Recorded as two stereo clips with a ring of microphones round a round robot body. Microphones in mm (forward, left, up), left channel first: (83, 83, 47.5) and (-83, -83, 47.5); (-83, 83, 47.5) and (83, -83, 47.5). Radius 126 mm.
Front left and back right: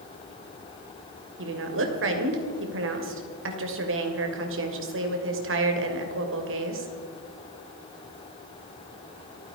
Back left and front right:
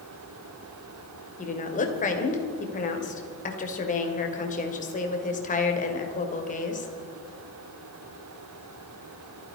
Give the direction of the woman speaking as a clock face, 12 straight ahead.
6 o'clock.